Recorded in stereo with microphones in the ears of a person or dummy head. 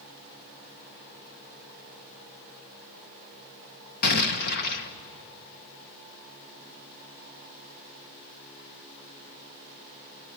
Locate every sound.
4.0 s an explosion: 55° left (ahead or behind), 1.3 m